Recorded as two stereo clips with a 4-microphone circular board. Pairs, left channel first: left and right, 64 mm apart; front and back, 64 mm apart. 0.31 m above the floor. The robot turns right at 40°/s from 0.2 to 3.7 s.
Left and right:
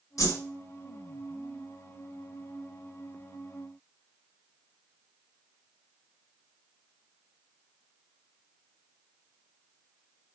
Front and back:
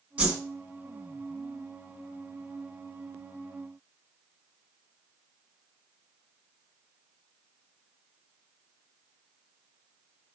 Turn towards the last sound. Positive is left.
turn(degrees=-110)